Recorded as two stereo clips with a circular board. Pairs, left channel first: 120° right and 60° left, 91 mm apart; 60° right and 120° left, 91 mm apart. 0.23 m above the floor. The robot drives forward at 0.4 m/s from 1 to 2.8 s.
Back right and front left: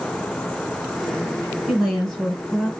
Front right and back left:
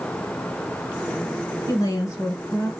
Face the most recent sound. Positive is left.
turn(degrees=-45)